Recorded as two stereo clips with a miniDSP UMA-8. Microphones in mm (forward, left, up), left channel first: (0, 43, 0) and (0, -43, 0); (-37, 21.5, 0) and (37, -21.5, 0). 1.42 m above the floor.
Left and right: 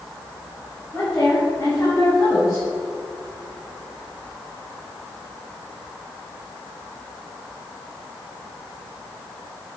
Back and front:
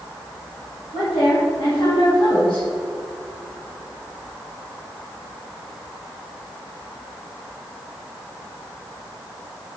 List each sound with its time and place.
0.9 s a woman speaking: 165° left, 3.5 m; by 2.7 s 150° left, 5.5 m